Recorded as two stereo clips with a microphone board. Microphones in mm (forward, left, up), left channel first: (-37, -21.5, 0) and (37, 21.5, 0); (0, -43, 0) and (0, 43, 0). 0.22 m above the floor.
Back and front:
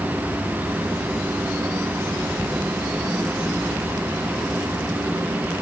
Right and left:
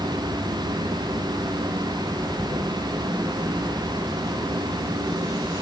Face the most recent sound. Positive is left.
No sound to turn to.